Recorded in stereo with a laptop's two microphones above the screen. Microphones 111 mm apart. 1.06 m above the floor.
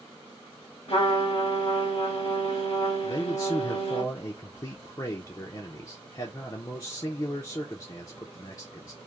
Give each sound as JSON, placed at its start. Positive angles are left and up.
{"t": 0.9, "sound": "a trumpet", "side_deg": 65, "distance_m": 1.2}
{"t": 3.0, "sound": "a man speaking", "side_deg": 35, "distance_m": 0.6}